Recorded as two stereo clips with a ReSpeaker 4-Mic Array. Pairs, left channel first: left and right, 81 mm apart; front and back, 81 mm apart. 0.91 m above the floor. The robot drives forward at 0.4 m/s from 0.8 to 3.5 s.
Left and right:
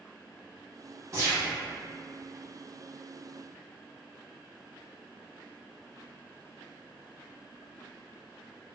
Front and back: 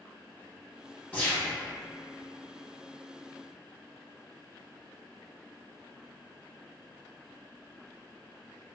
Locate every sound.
1.1 s a gunshot: 60° right, 1.0 m; by 1.5 s 70° right, 1.0 m